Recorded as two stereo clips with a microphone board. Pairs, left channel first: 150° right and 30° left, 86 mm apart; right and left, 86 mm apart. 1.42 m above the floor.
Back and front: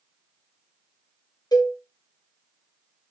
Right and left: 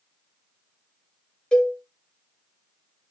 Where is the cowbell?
165° right, 0.6 m.